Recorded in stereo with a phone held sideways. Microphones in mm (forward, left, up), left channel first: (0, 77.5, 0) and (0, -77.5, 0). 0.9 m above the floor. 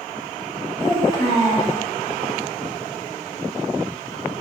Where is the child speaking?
30° left (ahead or behind), 1.4 m.